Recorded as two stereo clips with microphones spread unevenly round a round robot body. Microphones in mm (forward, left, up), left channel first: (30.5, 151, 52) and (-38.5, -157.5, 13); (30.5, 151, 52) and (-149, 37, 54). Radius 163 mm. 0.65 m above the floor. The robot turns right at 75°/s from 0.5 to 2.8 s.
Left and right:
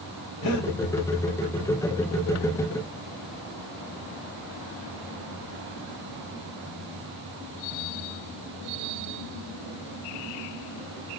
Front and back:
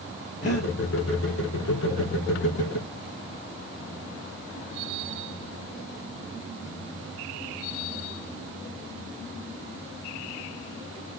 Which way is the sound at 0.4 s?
50° left.